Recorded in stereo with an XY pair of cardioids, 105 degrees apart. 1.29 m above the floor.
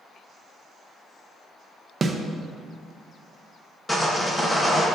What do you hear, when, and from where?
2.0 s a snare drum: 30° right, 0.7 m
3.9 s sawing: 20° left, 1.3 m